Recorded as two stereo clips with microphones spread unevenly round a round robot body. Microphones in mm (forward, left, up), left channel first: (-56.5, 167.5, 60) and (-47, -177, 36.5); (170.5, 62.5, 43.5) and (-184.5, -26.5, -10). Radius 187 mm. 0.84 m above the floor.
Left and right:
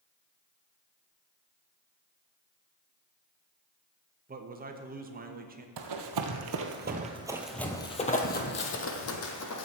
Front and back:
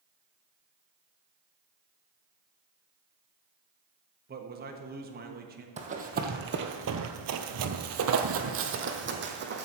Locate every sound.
4.3 s a man speaking: 130° right, 1.2 m
5.8 s running footsteps: 90° right, 1.3 m; by 9.7 s 130° left, 1.9 m